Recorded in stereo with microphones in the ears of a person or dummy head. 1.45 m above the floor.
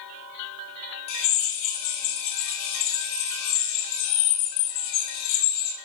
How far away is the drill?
About 5 m.